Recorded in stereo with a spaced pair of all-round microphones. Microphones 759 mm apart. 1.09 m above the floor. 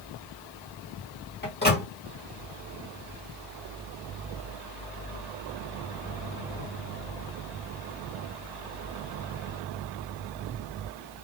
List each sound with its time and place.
1.4 s a microwave: 15° left (ahead or behind), 1.6 m